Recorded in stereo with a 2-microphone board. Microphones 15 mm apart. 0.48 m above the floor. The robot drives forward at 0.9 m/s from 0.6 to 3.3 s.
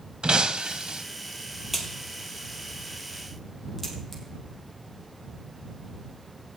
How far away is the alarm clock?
I don't hear an alarm clock.